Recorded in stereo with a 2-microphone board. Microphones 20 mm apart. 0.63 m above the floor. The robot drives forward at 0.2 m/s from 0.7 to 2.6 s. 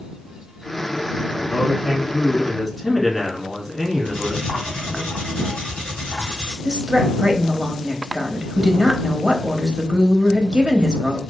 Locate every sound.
1.3 s a man speaking: 10° left (ahead or behind), 1.2 m
4.0 s cutlery clinking: 85° left, 2 m
6.7 s a woman speaking: 35° right (ahead or behind), 0.7 m